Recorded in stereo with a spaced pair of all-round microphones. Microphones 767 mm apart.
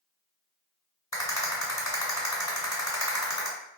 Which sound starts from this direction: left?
A rattle, at 1.1 s.